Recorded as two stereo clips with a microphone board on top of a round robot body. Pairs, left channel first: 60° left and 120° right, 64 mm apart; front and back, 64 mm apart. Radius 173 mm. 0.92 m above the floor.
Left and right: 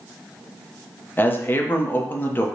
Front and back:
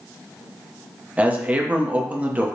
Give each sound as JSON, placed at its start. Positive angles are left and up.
{"t": 1.2, "sound": "a man speaking", "azimuth_deg": 115, "distance_m": 0.8}